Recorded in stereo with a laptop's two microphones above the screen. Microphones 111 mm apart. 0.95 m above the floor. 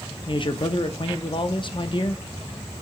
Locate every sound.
0.3 s a man speaking: 45° left (ahead or behind), 0.7 m